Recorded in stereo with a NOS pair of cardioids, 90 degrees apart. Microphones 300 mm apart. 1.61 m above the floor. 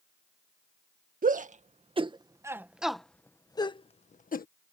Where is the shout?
30° right; by 4.5 s 30° left.